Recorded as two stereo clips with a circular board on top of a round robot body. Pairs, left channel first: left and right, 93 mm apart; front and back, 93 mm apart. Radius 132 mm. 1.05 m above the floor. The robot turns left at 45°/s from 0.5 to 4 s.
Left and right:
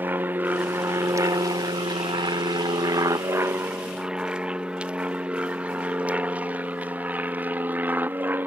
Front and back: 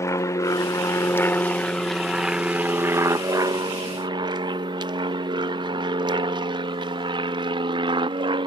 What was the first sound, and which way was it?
An aircraft, 35° right.